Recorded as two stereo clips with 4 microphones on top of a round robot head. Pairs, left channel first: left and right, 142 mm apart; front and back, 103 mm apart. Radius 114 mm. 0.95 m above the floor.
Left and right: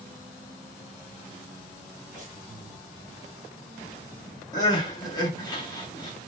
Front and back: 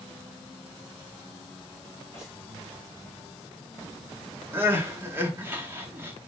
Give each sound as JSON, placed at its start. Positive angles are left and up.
{"t": 2.1, "sound": "breathing", "azimuth_deg": -45, "distance_m": 0.8}
{"t": 4.5, "sound": "crying", "azimuth_deg": 125, "distance_m": 1.0}